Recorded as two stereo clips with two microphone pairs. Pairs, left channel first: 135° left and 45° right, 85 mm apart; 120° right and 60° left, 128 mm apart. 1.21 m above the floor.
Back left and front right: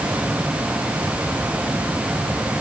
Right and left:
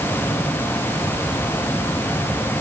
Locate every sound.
Only background noise.